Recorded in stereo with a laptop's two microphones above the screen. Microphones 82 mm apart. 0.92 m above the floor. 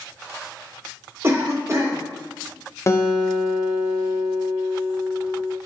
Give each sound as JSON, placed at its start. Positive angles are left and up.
{"t": 1.2, "sound": "a cough", "side_deg": -35, "distance_m": 0.8}
{"t": 2.9, "sound": "a guitar", "side_deg": 35, "distance_m": 0.6}